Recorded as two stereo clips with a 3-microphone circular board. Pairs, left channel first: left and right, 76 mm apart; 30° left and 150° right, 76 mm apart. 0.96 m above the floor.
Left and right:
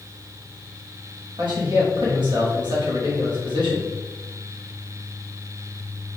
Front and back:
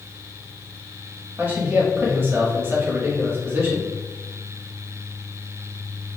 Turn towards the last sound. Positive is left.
turn(degrees=-90)